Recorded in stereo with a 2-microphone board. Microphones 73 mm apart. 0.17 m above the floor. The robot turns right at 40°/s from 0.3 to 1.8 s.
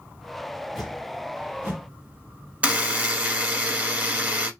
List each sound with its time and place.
0.8 s a whoosh: centre (ahead or behind), 2.0 m; by 1.9 s 30° right (ahead or behind), 2.0 m
2.6 s a buzzer: 20° right (ahead or behind), 1.1 m